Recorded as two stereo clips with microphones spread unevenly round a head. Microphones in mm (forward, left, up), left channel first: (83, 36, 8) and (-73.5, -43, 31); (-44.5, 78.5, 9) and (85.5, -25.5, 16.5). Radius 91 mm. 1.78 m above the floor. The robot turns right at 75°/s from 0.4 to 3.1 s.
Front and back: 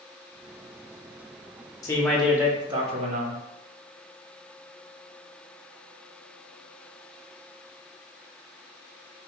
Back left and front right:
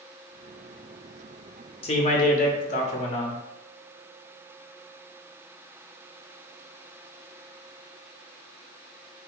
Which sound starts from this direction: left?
A man speaking, at 1.8 s.